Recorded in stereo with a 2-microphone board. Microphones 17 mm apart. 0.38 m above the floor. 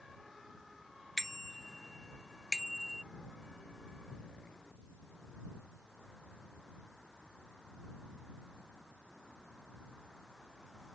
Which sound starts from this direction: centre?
A bicycle bell, at 1.2 s.